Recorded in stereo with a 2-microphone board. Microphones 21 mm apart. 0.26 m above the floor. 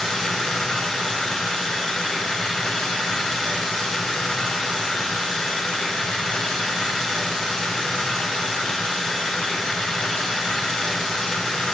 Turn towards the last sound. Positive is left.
turn(degrees=50)  # may be behind; listen again after turning